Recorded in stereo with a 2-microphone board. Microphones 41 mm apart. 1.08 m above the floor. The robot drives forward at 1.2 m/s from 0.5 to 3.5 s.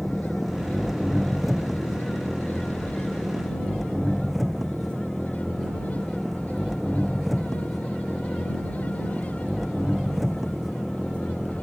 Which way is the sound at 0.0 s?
5° right (ahead or behind).